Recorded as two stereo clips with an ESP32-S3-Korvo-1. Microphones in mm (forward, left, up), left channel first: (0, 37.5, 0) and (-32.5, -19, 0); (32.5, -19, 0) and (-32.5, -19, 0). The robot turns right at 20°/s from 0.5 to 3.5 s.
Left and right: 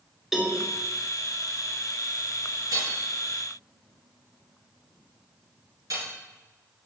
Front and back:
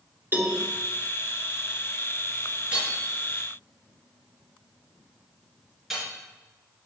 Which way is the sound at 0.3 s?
160° left.